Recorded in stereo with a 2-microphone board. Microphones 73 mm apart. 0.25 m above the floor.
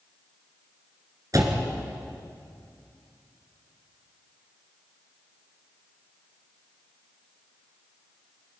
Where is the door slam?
50° right (ahead or behind), 2.5 m.